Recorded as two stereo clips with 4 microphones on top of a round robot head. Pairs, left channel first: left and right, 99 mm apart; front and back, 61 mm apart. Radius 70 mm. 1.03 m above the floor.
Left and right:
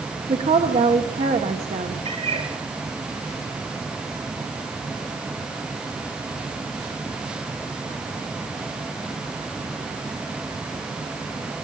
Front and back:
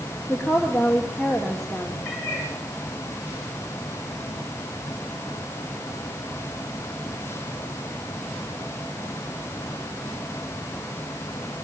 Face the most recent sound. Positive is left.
turn(degrees=-75)